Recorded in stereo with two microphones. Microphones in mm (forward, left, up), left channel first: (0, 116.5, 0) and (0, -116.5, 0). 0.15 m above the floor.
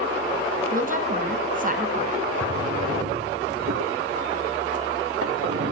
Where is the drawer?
70° right (ahead or behind), 0.9 m.